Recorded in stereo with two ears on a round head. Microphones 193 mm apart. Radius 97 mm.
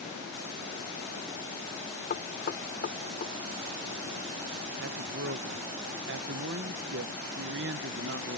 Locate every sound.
2.1 s knocking: 40° left (ahead or behind)
4.8 s a man speaking: 55° right (ahead or behind)